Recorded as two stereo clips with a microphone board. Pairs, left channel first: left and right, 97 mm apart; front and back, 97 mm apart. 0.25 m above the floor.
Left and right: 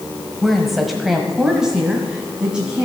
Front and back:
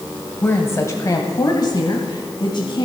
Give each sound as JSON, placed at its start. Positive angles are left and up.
{"t": 0.4, "sound": "a woman speaking", "azimuth_deg": 5, "distance_m": 1.2}